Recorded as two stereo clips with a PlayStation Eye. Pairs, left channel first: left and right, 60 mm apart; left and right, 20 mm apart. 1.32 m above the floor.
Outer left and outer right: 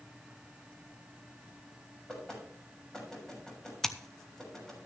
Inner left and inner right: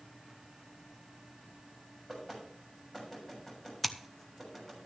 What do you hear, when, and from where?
2.1 s knocking: 10° left (ahead or behind), 6.5 m
3.8 s scissors: 10° left (ahead or behind), 0.9 m